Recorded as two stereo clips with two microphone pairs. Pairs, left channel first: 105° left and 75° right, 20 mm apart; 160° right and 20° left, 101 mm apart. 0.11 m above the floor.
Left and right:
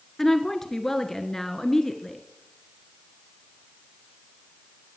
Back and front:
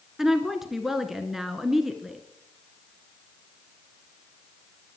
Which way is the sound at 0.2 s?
100° left.